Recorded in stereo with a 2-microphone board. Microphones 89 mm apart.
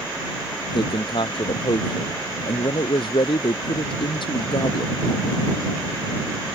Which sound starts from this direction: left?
A man speaking, at 0.7 s.